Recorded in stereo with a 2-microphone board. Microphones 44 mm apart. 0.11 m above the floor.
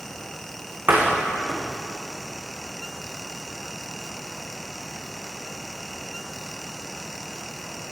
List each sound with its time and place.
0.9 s a door slam: 45° right (ahead or behind), 6 m